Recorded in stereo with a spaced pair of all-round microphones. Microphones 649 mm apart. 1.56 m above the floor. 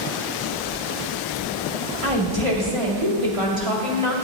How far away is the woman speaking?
About 2.5 m.